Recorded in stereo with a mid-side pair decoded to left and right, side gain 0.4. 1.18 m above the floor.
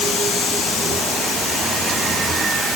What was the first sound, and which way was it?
Only background noise.